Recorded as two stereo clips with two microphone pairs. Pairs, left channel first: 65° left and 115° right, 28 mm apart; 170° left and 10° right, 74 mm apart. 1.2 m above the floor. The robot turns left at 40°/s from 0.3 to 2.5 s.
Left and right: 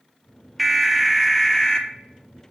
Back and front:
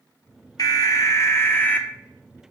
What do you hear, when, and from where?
0.6 s an alarm: 160° left, 0.8 m; by 1.9 s 110° left, 0.8 m